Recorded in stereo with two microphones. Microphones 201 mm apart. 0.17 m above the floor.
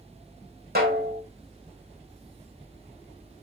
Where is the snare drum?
50° right (ahead or behind), 3.5 m.